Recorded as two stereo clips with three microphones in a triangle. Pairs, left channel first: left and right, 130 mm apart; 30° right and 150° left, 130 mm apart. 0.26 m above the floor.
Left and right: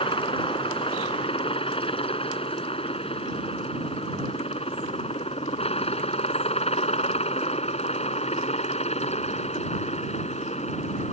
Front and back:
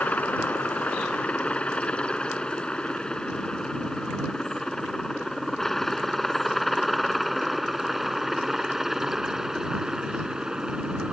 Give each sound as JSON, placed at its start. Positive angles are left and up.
{"t": 0.0, "sound": "a helicopter", "azimuth_deg": 50}